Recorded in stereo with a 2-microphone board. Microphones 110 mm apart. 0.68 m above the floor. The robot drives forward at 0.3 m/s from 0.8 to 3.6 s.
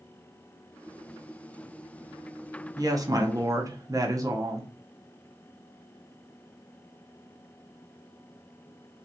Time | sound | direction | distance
2.8 | a woman speaking | 35° right (ahead or behind) | 0.6 m